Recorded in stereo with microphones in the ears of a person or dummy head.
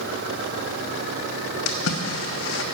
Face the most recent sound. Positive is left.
turn(degrees=85)